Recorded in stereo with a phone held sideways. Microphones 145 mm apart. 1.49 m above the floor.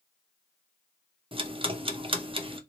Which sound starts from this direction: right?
Ticking, at 1.3 s.